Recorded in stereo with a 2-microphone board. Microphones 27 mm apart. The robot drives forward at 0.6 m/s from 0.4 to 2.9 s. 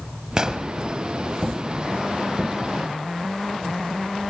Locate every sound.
0.4 s an explosion: 25° right (ahead or behind), 1.5 m; by 0.7 s 20° right (ahead or behind), 1.7 m